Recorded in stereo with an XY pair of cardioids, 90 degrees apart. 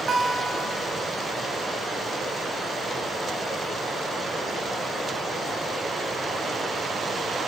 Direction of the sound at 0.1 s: 65° right.